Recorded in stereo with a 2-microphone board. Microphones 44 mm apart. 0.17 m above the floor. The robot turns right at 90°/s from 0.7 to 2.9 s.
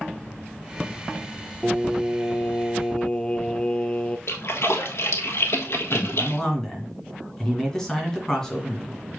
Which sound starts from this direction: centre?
A man speaking, at 5.9 s.